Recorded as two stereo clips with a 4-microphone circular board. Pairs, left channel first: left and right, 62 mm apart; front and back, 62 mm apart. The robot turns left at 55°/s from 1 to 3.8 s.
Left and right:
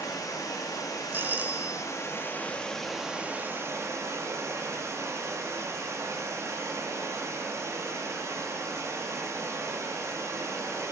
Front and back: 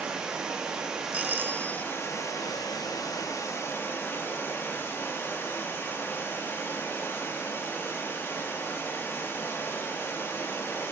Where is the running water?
105° left, 1.9 m; by 10.9 s 50° right, 1.9 m.